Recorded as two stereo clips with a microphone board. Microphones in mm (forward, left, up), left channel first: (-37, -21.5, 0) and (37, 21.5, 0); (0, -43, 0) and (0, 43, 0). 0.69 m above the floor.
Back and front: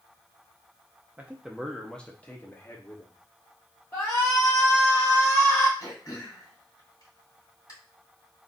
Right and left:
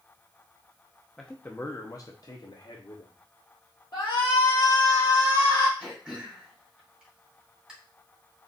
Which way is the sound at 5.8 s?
170° left.